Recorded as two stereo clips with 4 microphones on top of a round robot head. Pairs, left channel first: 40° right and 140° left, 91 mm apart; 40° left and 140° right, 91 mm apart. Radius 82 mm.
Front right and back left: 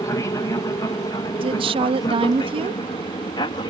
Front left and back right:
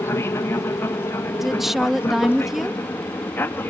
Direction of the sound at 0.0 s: 5° right.